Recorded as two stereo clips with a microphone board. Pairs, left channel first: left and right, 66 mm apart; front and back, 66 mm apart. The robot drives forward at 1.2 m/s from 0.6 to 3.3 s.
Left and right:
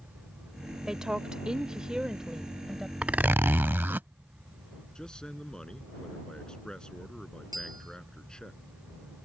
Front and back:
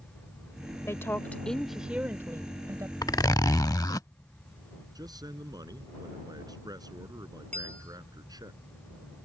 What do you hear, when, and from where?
0.9 s a woman speaking: 10° right; by 2.9 s 170° right
3.0 s a zipper: 15° right; by 4.1 s 30° right
5.0 s a man speaking: 170° left
7.5 s a bell: 70° right